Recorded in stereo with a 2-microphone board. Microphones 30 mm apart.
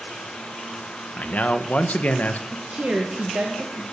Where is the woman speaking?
65° right (ahead or behind), 1.8 m.